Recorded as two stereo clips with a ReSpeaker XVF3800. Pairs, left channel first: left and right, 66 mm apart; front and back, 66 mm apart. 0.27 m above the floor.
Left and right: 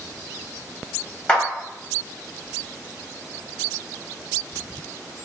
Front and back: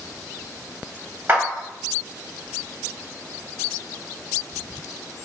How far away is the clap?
About 1.5 m.